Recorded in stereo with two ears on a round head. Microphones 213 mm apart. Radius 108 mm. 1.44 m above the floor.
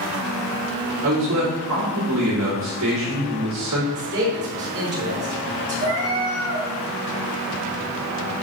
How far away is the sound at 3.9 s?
About 3.5 m.